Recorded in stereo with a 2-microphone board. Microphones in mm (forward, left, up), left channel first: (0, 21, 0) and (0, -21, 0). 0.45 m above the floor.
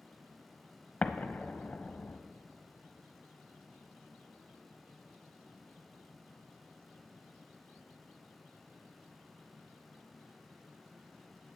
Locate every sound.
1.0 s an explosion: 40° left (ahead or behind), 0.6 m